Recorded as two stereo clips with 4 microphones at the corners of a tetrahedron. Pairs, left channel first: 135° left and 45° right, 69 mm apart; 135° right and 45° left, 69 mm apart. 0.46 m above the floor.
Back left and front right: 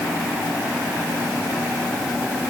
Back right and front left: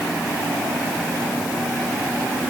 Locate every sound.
Only background noise.